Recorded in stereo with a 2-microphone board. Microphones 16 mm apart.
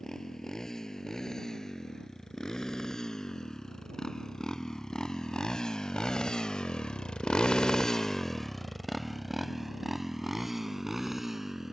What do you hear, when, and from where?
0.0 s a motorcycle: 35° left (ahead or behind); by 11.7 s 20° right (ahead or behind)